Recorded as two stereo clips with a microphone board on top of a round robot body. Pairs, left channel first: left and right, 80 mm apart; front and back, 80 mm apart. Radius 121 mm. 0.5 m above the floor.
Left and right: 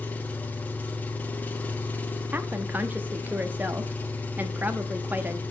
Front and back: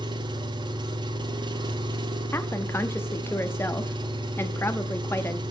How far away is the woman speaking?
About 0.7 m.